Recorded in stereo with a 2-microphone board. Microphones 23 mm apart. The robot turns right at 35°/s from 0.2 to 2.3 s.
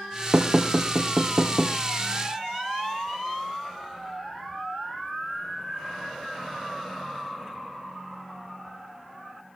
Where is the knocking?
45° right (ahead or behind), 2 m; by 1.8 s 65° right (ahead or behind), 2 m.